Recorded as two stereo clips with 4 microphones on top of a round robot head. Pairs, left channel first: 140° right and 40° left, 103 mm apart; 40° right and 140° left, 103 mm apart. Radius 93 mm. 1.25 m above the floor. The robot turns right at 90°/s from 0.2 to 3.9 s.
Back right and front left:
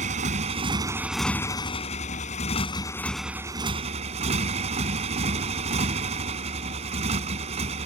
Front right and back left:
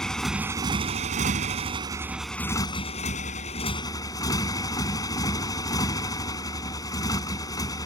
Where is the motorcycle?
45° left; by 7.9 s 15° left.